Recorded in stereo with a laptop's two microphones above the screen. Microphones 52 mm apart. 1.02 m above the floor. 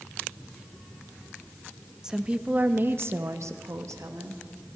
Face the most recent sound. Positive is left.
turn(degrees=-80)